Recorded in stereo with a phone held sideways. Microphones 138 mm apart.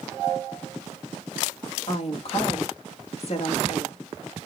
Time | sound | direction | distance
1.9 | a woman speaking | 50° left (ahead or behind) | 1.1 m